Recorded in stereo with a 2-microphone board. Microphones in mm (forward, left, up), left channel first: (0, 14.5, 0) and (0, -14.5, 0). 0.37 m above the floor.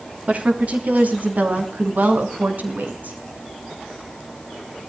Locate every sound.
0.3 s a woman speaking: 50° right (ahead or behind), 3.5 m; by 3.2 s 70° right (ahead or behind), 4.5 m